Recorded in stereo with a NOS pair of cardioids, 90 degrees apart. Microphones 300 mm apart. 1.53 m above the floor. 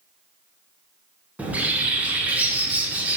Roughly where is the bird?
Ahead.